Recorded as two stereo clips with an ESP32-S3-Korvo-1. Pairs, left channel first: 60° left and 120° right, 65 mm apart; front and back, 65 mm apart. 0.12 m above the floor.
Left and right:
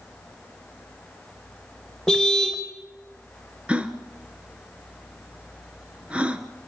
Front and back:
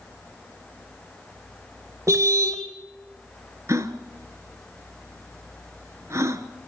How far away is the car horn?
About 3 m.